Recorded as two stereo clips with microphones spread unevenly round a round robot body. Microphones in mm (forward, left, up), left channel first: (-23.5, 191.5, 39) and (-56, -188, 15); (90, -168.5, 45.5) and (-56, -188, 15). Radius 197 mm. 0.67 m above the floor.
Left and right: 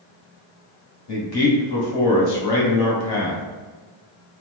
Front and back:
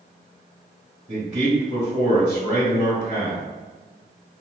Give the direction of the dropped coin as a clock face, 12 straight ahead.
I don't hear a dropped coin.